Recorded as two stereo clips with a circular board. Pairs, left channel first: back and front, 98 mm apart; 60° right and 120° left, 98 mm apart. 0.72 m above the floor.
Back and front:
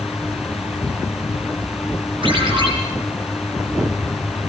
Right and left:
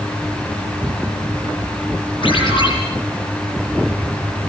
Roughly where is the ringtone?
Ahead right.